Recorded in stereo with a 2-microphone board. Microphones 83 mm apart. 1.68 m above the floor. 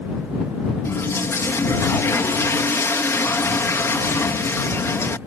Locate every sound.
0.8 s a toilet flushing: 30° left (ahead or behind)